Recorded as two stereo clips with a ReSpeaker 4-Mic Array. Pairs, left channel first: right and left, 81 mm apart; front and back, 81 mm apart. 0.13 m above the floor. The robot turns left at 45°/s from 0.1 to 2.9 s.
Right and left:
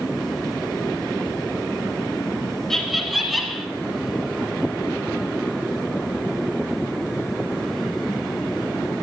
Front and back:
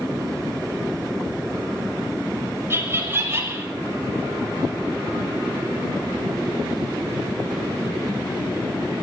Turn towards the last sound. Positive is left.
turn(degrees=180)